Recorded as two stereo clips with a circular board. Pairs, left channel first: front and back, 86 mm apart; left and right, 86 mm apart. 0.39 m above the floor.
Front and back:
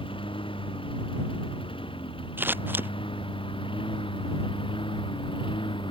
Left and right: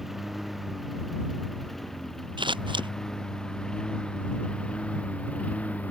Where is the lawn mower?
5° right; by 5.9 s 15° left.